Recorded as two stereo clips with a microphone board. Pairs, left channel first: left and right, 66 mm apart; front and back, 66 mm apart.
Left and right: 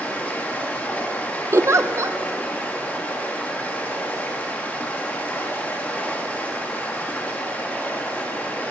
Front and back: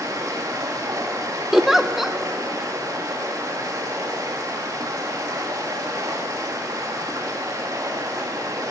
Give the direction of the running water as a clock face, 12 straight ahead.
7 o'clock.